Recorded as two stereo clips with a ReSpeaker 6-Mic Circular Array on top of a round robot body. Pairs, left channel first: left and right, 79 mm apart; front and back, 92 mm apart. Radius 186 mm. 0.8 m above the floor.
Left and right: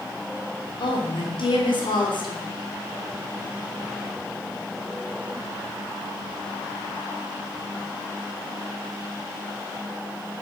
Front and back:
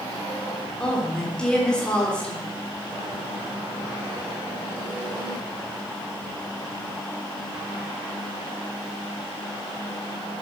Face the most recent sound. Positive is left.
turn(degrees=80)